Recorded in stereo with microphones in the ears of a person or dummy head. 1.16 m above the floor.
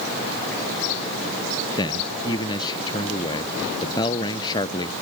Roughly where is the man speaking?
Left.